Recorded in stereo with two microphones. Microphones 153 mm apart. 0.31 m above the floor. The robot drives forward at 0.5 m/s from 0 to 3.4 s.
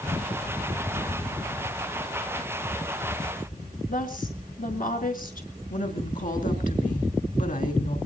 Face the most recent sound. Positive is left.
turn(degrees=65)  # may be behind; listen again after turning